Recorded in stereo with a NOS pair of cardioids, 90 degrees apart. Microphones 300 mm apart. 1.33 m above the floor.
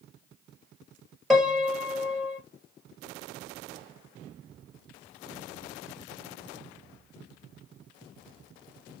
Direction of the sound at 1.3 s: Straight ahead.